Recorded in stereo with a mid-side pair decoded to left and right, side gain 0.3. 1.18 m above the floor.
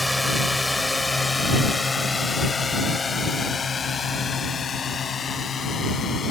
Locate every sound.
0.0 s a drone: 10° left; by 6.3 s 70° left